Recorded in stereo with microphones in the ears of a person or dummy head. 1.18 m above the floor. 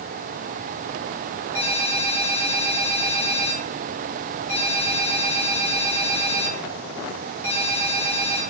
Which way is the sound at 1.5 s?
15° left (ahead or behind).